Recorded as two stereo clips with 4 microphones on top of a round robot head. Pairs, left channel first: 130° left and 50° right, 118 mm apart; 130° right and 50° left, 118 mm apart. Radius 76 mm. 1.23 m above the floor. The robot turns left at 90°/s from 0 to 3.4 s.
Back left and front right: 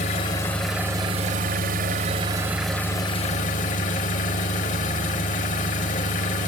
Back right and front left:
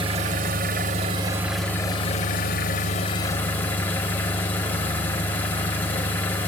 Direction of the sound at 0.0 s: 100° left.